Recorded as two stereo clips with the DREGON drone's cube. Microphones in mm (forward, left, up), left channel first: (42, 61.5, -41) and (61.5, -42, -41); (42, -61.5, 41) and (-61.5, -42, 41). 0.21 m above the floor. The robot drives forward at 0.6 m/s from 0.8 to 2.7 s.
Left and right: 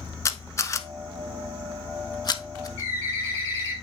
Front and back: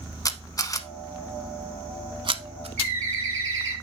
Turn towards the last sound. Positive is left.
turn(degrees=60)